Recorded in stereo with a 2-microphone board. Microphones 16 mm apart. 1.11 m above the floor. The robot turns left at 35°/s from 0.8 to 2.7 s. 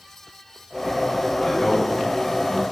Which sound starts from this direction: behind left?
A man speaking, at 1.4 s.